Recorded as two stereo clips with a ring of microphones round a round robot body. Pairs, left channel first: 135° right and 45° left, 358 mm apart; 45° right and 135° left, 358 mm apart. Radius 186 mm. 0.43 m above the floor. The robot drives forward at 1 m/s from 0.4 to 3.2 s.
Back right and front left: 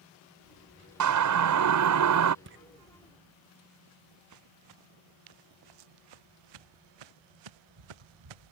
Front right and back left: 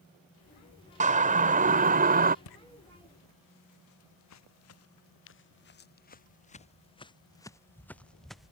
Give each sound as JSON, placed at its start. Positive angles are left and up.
{"t": 1.0, "sound": "a siren", "azimuth_deg": 70}
{"t": 2.5, "sound": "footsteps", "azimuth_deg": -15}